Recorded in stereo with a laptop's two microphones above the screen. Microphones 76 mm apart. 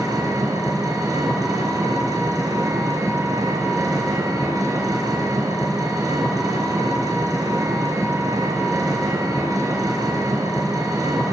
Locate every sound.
0.0 s an engine running: 50° right (ahead or behind), 4.5 m